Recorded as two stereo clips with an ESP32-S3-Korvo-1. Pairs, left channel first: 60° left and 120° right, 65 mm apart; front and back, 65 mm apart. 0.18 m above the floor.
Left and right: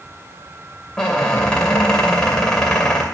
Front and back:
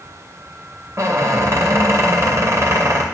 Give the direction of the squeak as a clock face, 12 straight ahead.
7 o'clock.